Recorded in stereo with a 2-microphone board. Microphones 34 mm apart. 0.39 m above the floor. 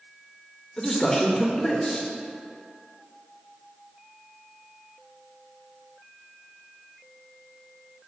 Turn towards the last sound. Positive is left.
turn(degrees=15)  # may be behind; listen again after turning